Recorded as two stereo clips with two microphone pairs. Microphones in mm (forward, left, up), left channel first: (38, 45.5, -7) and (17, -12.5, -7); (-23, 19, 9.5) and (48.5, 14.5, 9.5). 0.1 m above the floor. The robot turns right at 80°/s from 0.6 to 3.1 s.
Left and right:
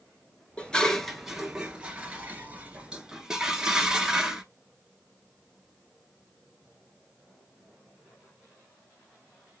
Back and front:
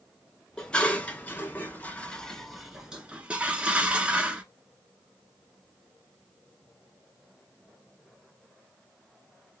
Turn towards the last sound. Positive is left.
turn(degrees=-50)